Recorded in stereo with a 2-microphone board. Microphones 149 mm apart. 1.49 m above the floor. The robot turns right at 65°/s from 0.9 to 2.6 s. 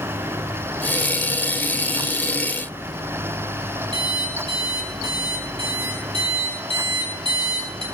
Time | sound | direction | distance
3.9 | an alarm clock | 35° right (ahead or behind) | 4 m